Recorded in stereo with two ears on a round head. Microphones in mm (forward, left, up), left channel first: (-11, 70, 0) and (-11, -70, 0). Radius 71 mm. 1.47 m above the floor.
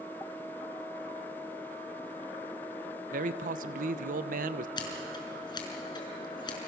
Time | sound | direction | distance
3.1 | a man speaking | 60° right (ahead or behind) | 1.0 m
4.8 | scissors | 30° left (ahead or behind) | 4.5 m